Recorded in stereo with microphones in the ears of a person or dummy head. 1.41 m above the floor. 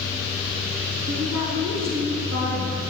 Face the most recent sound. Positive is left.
turn(degrees=-60)  # may be behind; listen again after turning